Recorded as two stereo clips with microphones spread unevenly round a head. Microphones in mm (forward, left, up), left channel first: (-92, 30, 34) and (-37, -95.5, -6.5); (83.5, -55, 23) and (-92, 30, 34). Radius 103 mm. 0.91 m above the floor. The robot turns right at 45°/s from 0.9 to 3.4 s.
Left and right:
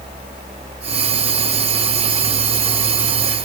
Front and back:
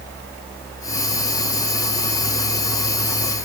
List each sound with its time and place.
Only background noise.